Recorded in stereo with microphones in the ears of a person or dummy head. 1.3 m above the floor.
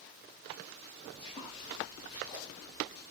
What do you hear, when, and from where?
1.1 s footsteps: 25° left (ahead or behind), 6 m